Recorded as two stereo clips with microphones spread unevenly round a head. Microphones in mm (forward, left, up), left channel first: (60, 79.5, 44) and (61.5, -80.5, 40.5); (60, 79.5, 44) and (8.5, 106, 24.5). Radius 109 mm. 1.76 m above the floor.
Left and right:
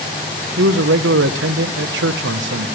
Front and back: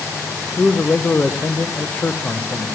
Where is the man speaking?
105° right, 0.9 m.